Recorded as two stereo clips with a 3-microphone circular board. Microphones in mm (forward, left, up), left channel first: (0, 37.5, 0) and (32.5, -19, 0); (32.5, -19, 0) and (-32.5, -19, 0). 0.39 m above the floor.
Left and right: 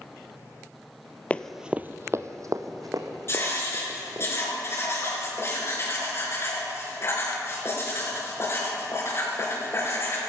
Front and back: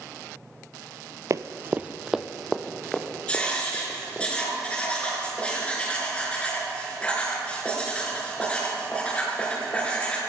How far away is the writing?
About 4.5 m.